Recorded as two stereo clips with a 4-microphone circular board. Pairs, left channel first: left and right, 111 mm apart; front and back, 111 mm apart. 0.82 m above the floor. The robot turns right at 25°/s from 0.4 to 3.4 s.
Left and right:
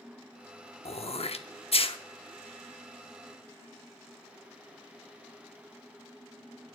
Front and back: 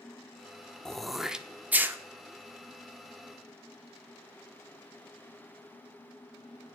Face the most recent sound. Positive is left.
turn(degrees=150)